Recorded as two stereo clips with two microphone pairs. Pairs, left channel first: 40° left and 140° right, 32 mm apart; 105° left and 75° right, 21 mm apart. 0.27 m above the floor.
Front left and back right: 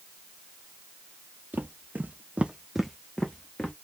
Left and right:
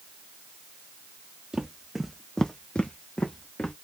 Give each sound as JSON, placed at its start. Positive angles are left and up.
{"t": 1.5, "sound": "footsteps", "azimuth_deg": -135, "distance_m": 1.1}